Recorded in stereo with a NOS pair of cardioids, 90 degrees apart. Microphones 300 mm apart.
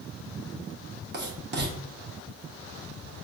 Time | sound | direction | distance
1.1 | writing | 35° right | 1.0 m